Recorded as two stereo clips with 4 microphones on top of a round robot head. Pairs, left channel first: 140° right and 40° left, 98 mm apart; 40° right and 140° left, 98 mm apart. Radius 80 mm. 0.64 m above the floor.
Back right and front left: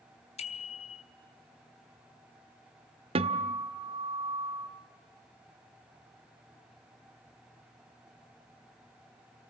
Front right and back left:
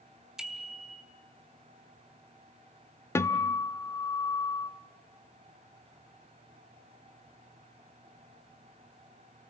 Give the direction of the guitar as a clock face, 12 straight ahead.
11 o'clock.